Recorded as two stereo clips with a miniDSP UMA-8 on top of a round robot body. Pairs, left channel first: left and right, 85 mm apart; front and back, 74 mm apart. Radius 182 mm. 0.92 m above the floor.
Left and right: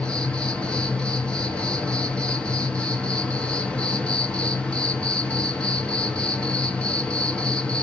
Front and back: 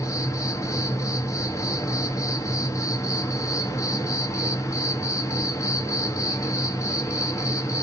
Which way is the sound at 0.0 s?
15° left.